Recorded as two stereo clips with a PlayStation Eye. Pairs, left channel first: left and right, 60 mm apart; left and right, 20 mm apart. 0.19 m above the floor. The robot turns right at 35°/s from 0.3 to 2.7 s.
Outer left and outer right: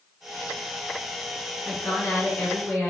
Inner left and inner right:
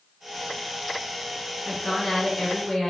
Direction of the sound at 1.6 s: 20° left (ahead or behind).